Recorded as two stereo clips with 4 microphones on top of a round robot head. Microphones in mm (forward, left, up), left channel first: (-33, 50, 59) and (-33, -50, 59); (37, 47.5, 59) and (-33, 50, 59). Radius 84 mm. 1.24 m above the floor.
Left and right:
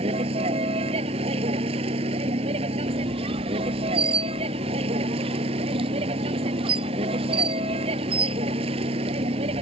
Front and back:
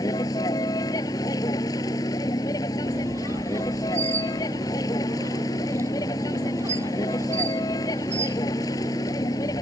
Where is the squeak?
120° right.